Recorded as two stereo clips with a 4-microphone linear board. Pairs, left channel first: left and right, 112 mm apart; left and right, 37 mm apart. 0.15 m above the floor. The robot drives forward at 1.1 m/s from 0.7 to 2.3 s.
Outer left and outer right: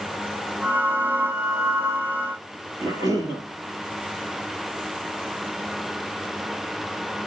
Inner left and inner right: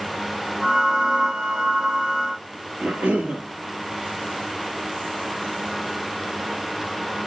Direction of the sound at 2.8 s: 35° right (ahead or behind).